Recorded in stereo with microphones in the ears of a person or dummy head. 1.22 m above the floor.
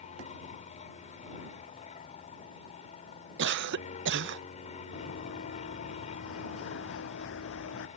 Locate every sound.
0.0 s an aircraft: 35° left (ahead or behind)
3.4 s a cough: 55° right (ahead or behind)
4.9 s running footsteps: 60° left (ahead or behind); by 7.9 s 70° left (ahead or behind)